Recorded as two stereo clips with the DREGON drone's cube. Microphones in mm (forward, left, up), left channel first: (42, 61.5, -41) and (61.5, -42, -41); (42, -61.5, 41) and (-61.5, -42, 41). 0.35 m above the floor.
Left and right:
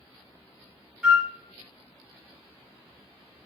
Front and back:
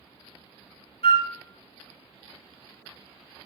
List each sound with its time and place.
1.0 s a flute: straight ahead, 0.5 m